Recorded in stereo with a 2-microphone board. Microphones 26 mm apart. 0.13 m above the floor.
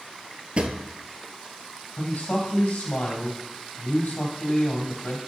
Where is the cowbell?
No cowbell in this recording.